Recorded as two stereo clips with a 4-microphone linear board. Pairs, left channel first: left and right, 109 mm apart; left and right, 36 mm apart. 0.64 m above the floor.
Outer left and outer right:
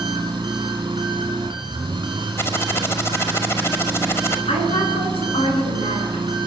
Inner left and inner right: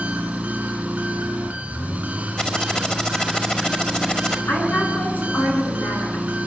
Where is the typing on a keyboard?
25° left (ahead or behind), 1.9 m.